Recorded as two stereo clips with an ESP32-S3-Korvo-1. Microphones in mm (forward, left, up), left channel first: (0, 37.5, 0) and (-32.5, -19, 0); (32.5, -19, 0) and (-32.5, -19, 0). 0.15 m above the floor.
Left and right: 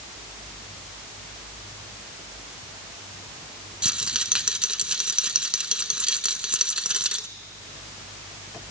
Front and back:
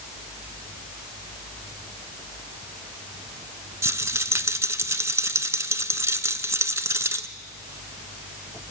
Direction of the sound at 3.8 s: 170° left.